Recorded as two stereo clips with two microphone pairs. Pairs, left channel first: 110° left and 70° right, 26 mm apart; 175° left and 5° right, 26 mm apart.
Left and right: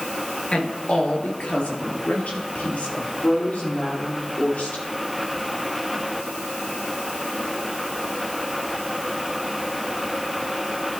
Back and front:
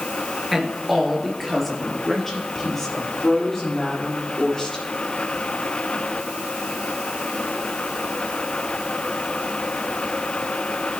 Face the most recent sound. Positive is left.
turn(degrees=110)